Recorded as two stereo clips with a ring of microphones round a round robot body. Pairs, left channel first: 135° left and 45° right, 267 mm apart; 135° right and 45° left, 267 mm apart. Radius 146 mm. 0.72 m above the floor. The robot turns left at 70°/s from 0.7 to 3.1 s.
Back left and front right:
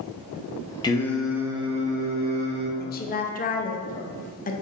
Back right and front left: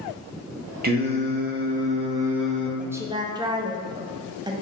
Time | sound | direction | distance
0.8 | singing | 70° left | 0.7 m
2.8 | a woman speaking | 130° left | 0.5 m